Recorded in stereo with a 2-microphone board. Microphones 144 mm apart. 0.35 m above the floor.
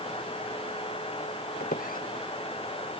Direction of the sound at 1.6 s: 85° left.